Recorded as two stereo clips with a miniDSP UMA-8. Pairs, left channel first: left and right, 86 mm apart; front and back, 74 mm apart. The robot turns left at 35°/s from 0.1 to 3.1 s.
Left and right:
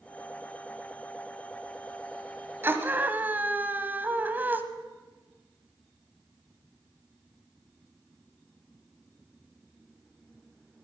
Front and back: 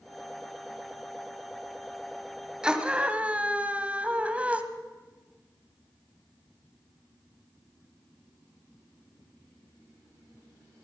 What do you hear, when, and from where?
2.6 s a scream: 115° right, 1.1 m; by 4.6 s 130° right, 1.1 m